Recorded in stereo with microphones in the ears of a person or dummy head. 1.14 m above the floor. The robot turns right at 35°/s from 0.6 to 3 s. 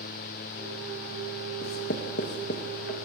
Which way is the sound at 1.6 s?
35° left (ahead or behind).